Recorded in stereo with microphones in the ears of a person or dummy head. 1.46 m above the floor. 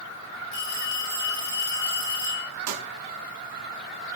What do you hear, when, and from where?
0.5 s a phone ringing: 65° left (ahead or behind), 7 m
2.7 s a pop: 80° right, 1.7 m